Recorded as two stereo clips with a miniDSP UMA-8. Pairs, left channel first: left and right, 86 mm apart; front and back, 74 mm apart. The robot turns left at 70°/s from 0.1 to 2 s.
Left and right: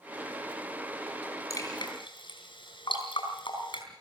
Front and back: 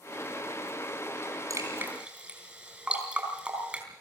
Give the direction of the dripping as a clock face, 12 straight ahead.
7 o'clock.